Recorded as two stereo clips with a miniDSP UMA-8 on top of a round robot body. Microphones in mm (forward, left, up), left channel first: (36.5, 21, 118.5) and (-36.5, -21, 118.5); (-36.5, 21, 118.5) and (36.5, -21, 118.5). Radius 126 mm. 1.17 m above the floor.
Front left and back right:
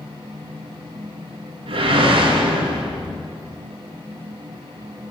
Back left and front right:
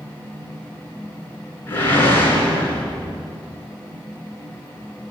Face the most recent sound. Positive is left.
turn(degrees=-145)